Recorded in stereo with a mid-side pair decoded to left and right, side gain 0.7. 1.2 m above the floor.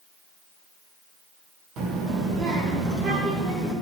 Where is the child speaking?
50° right, 1.8 m; by 3.7 s 35° right, 3.5 m.